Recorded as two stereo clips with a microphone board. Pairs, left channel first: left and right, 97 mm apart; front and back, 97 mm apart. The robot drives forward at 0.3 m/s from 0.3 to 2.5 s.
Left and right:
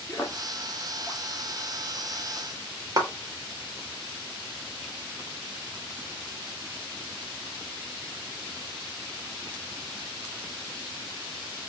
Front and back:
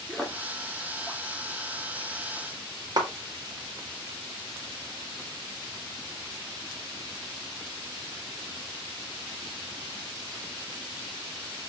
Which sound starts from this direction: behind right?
A clap, at 3.0 s.